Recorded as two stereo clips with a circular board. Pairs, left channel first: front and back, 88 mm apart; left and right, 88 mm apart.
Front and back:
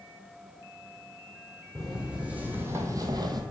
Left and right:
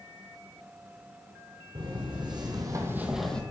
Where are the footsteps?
95° right, 1.8 m; by 3.4 s 165° left, 0.8 m.